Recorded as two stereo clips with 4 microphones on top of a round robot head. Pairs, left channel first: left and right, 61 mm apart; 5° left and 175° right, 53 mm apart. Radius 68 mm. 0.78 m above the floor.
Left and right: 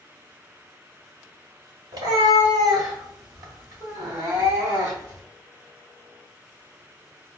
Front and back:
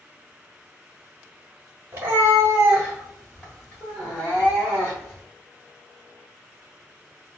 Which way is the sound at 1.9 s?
115° right.